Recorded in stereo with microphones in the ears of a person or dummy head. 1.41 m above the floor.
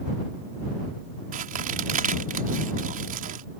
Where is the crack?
45° right (ahead or behind).